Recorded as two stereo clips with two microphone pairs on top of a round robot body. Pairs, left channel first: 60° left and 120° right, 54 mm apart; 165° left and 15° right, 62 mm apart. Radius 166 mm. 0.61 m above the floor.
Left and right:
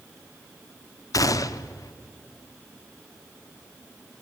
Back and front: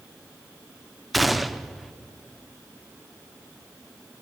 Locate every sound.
1.1 s a gunshot: 75° left, 0.6 m